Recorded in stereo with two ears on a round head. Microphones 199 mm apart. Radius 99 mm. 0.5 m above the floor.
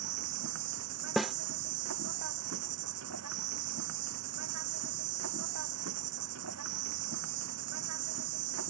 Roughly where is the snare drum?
Centre.